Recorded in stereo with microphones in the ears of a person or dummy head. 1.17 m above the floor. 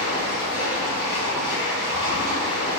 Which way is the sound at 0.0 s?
50° left (ahead or behind).